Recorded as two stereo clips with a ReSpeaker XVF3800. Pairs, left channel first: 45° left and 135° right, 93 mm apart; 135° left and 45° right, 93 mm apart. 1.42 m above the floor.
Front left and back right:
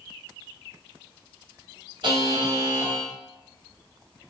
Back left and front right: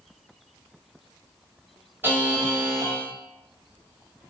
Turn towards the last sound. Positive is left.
turn(degrees=-110)